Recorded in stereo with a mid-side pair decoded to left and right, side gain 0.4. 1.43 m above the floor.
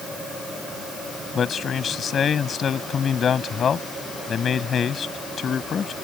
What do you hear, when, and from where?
1.4 s a man speaking: 55° left